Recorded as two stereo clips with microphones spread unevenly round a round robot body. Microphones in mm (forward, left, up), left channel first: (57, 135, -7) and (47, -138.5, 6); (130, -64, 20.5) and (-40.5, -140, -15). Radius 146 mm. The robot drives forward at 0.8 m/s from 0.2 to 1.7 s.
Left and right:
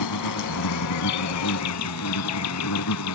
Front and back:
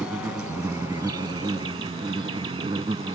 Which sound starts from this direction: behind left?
An insect, at 0.0 s.